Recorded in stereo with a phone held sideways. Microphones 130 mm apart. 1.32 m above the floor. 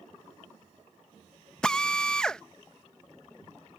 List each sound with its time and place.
1.6 s a drill: 5° left (ahead or behind)